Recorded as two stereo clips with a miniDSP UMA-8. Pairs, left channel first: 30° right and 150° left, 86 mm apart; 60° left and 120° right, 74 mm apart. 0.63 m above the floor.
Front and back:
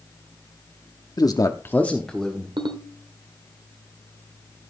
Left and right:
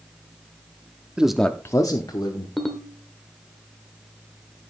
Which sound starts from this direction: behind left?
A ringtone, at 2.6 s.